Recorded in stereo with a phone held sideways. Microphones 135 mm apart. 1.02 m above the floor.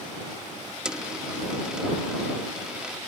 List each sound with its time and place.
0.8 s a dropped coin: 5° right (ahead or behind)